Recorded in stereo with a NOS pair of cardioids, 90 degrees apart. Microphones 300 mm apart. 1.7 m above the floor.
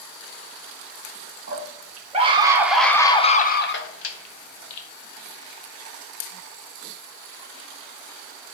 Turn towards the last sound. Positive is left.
turn(degrees=70)